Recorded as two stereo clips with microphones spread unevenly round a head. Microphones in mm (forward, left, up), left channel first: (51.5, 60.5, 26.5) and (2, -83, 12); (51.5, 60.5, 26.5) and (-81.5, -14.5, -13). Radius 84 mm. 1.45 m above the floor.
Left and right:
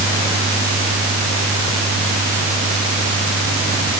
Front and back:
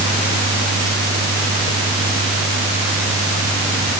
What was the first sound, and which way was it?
Only background noise.